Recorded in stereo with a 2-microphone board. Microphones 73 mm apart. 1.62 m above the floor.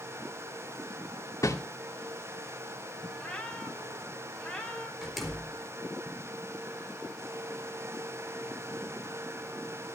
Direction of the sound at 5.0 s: Centre (ahead or behind).